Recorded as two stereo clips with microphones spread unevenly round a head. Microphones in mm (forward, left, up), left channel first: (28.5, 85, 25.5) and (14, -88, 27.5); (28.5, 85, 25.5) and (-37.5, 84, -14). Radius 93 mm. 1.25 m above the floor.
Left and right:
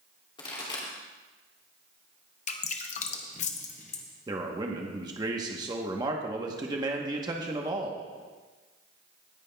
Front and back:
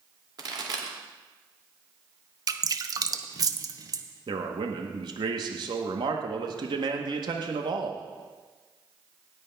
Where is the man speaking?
165° right, 1.0 m.